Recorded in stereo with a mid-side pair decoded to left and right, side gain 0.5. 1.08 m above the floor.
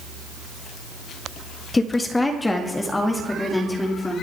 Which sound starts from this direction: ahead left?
A woman speaking, at 1.7 s.